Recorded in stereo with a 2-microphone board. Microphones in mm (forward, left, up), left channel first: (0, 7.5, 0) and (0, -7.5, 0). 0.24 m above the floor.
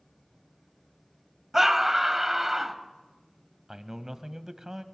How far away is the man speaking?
About 1.1 m.